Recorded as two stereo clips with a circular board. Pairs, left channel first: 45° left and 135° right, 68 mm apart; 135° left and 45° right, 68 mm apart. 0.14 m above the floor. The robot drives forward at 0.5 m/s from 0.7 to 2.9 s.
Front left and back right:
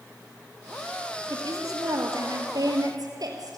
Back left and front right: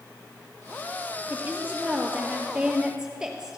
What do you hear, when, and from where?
1.3 s a woman speaking: 110° right, 2.5 m; by 3.6 s 125° right, 3 m